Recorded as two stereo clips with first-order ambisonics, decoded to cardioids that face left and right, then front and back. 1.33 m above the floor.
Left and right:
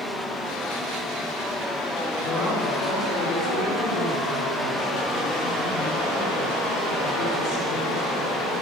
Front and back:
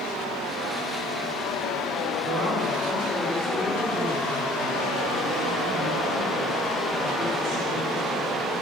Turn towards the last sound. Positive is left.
turn(degrees=110)